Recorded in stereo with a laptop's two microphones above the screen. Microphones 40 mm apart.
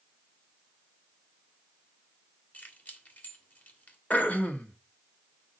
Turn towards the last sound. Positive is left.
turn(degrees=40)  # may be behind; listen again after turning